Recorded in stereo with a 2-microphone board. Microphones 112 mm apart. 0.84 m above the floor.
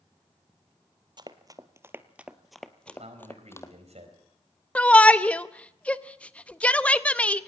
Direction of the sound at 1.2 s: 40° right (ahead or behind).